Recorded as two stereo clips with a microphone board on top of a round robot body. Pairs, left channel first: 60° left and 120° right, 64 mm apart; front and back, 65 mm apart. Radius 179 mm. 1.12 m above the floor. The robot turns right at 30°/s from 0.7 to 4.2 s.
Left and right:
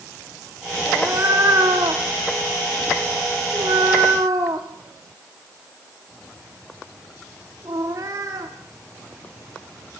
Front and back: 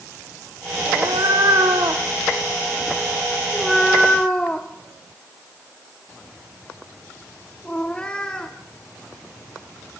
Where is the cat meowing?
175° right, 0.8 m; by 8.5 s 75° right, 0.8 m.